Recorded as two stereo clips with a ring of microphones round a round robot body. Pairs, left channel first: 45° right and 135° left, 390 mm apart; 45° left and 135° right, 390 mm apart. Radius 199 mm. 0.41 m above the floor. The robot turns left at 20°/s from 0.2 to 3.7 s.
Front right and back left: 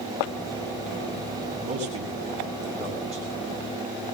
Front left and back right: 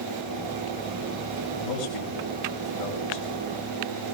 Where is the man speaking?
65° left, 5 m; by 3.3 s 35° left, 5 m.